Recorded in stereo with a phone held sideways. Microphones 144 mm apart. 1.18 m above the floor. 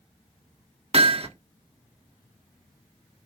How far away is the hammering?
About 1.0 m.